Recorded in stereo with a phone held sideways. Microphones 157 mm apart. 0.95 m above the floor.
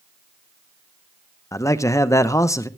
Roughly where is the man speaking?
Centre.